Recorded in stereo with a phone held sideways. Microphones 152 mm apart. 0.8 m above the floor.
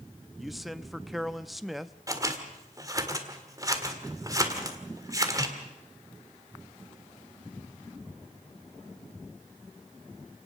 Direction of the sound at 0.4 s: Centre (ahead or behind).